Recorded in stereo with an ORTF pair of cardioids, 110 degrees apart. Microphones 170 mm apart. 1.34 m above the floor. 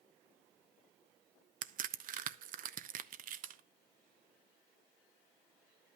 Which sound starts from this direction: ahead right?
A crack, at 1.6 s.